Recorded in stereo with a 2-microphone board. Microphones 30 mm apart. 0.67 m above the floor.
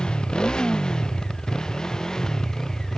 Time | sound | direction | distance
0.0 | a motorcycle | 30° left (ahead or behind) | ?